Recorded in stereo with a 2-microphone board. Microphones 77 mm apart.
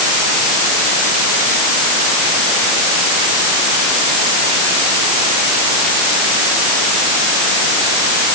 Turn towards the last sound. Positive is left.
No sound to turn to.